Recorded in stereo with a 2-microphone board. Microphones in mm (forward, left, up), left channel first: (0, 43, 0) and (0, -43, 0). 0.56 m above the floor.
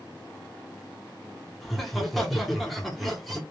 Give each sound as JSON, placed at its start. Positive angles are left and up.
{"t": 1.6, "sound": "laughter", "side_deg": 0, "distance_m": 0.9}